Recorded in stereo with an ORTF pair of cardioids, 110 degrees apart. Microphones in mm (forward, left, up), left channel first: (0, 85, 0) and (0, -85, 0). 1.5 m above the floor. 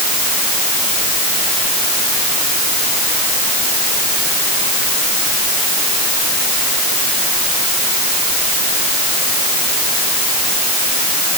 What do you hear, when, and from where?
Only background noise.